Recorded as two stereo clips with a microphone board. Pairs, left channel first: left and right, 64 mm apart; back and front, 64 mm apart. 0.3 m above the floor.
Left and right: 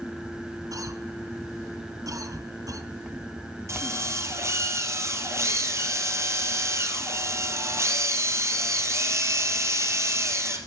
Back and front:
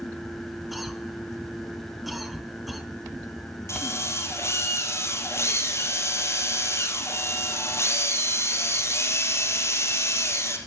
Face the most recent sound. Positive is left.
turn(degrees=-135)